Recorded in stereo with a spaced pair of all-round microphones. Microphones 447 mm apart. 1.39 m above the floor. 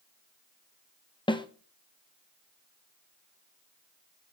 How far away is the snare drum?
About 0.6 m.